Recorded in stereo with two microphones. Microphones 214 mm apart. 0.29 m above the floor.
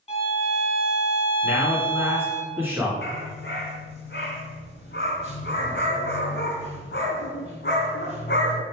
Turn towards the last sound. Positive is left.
turn(degrees=60)  # may be behind; listen again after turning